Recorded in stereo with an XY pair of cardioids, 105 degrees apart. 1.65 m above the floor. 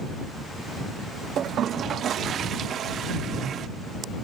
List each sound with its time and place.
1.4 s a toilet flushing: 60° right